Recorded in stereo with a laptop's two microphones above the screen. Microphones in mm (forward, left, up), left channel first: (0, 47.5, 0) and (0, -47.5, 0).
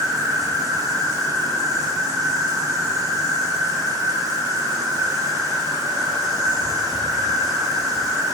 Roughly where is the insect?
Right.